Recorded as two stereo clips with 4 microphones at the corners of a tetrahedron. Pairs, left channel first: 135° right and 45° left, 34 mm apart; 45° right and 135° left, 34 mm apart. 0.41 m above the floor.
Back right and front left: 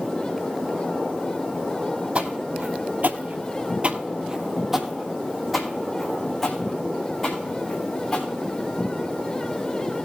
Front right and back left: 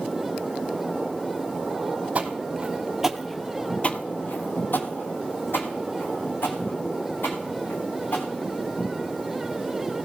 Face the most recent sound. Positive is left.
turn(degrees=-55)